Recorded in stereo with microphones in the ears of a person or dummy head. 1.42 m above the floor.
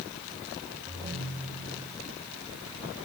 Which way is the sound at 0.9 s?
40° right (ahead or behind).